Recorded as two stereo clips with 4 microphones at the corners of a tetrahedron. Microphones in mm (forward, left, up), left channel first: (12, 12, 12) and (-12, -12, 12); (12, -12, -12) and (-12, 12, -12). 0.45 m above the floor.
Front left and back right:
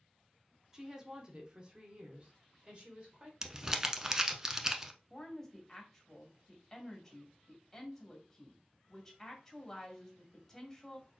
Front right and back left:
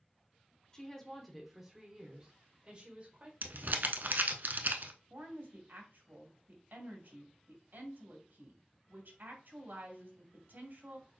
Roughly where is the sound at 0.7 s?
Right.